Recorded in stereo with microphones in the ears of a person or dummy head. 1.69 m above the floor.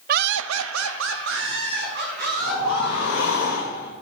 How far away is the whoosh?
About 2.5 m.